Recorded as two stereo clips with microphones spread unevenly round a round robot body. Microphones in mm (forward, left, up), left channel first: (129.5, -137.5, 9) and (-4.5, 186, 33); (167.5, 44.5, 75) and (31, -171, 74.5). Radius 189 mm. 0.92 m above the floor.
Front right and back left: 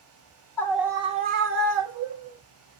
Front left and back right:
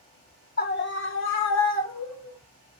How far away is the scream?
About 0.7 m.